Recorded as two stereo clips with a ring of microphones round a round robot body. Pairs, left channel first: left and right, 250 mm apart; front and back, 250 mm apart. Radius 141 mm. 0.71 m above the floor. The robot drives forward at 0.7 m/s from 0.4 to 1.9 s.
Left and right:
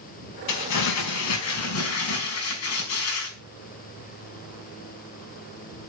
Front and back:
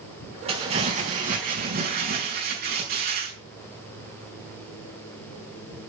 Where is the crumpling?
110° left, 4 m; by 3.3 s 120° left, 4.5 m.